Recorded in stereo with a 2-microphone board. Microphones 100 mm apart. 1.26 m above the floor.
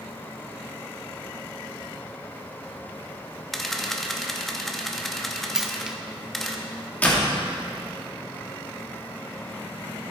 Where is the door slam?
15° left (ahead or behind), 1.8 m.